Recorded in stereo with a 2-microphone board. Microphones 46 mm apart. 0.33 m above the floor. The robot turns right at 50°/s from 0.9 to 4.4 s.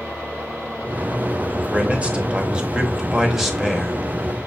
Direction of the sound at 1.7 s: 25° right (ahead or behind).